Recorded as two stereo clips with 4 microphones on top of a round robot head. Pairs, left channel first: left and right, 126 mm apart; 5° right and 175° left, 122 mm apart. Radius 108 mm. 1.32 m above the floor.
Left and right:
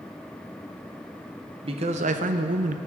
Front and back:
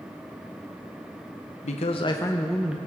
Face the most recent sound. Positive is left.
turn(degrees=-105)